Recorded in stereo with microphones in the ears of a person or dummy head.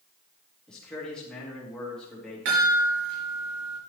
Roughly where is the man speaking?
Centre.